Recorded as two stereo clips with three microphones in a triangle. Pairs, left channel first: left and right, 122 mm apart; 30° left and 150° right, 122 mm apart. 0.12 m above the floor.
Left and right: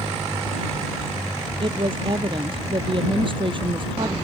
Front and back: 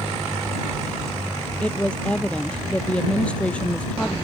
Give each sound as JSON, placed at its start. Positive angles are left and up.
{"t": 1.6, "sound": "a woman speaking", "azimuth_deg": -50}